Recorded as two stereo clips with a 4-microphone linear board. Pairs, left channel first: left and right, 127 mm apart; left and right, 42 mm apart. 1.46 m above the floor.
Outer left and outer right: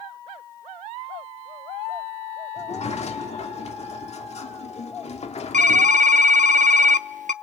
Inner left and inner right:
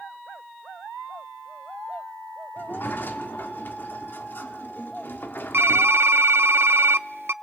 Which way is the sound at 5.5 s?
80° right.